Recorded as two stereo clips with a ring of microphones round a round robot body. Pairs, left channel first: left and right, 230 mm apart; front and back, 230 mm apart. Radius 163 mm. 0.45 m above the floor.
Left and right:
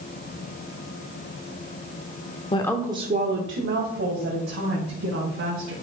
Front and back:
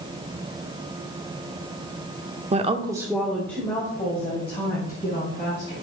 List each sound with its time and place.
2.5 s a woman speaking: 140° left, 1.0 m; by 5.7 s 70° right, 4.5 m